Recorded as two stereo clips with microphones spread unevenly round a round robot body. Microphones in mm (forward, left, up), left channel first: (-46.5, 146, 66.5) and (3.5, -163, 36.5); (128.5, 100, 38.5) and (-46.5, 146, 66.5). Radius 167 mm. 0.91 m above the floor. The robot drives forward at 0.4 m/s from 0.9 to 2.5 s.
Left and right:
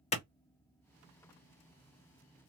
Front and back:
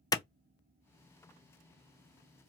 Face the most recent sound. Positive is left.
turn(degrees=145)